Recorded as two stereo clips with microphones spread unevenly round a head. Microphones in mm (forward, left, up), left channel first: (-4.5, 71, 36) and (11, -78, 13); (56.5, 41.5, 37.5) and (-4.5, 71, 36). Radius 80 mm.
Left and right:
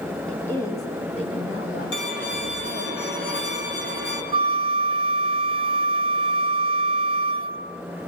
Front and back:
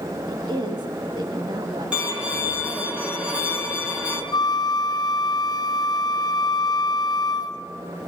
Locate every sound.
0.3 s a woman speaking: straight behind, 2.5 m; by 2.9 s 110° left, 3.5 m
1.9 s a violin: 80° left, 5.5 m
4.3 s a flute: 35° right, 0.8 m